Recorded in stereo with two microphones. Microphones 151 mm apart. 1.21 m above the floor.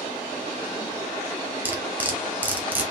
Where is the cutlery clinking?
10° right (ahead or behind), 1.3 m.